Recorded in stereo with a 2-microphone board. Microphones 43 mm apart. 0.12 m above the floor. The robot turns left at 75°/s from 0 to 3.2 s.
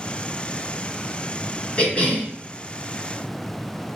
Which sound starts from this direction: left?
A cough, at 1.8 s.